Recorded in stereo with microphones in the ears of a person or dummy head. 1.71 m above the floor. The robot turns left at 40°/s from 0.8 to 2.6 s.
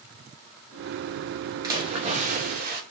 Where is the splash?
20° right, 0.7 m; by 2.8 s 60° right, 0.7 m.